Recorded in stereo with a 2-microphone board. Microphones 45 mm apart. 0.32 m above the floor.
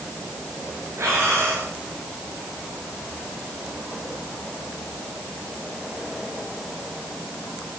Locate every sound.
1.0 s breathing: 85° right, 9 m